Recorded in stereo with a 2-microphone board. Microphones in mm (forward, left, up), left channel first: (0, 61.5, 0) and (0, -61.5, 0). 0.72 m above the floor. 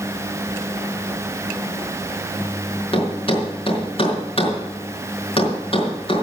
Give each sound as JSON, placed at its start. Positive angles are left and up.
{"t": 2.9, "sound": "a thud", "side_deg": 50, "distance_m": 4.5}